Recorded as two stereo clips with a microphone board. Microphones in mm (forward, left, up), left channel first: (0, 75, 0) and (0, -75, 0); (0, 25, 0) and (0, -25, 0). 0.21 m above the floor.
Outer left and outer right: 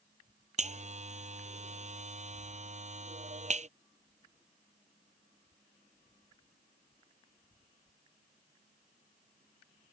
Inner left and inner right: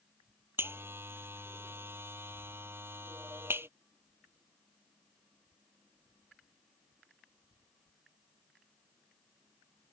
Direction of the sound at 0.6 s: 50° right (ahead or behind).